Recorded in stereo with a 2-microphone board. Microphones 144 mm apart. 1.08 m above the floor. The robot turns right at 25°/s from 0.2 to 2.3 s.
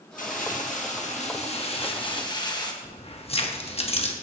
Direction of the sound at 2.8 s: 45° left (ahead or behind).